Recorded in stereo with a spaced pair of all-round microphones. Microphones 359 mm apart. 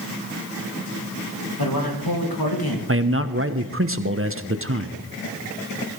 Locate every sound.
1.6 s a man speaking: 75° left (ahead or behind), 2.5 m
2.9 s a man speaking: 35° right (ahead or behind), 0.9 m